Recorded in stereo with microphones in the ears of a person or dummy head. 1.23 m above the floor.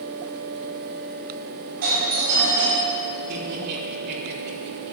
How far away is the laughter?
About 3.5 m.